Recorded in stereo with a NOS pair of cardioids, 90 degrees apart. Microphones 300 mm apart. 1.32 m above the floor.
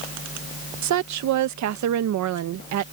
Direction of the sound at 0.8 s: 70° right.